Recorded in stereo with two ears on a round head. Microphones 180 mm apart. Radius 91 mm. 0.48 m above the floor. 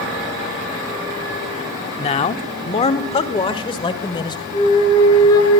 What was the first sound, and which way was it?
A man speaking, 30° left (ahead or behind).